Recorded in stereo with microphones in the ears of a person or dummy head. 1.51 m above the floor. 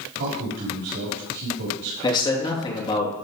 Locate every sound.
0.2 s a man speaking: 65° right (ahead or behind), 5 m
2.0 s a man speaking: 20° left (ahead or behind), 3 m